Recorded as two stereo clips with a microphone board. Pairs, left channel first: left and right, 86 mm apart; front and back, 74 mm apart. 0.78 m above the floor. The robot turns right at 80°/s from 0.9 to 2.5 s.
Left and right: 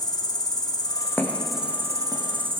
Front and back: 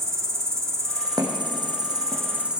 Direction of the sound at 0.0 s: 130° left.